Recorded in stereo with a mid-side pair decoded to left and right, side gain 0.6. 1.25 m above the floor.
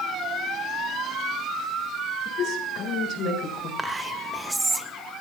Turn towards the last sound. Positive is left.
turn(degrees=-10)